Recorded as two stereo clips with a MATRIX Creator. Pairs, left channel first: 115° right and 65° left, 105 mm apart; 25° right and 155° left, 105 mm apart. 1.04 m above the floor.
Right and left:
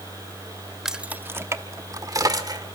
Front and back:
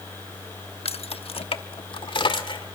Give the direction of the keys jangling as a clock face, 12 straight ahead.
1 o'clock.